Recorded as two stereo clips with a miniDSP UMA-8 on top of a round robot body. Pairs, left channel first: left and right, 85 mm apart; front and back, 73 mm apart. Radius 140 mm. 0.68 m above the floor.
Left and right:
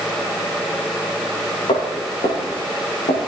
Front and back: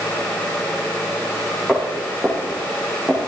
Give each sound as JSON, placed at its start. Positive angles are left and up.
{"t": 1.7, "sound": "footsteps", "azimuth_deg": 85, "distance_m": 5.0}